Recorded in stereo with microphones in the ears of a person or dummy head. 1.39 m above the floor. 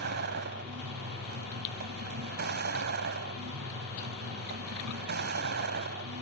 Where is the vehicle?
55° right (ahead or behind).